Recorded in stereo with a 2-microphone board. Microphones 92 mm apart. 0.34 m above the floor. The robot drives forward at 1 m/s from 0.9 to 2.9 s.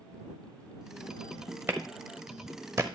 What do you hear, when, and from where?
1.7 s a clap: 25° right (ahead or behind), 1.4 m; by 2.9 s 30° right (ahead or behind), 1.2 m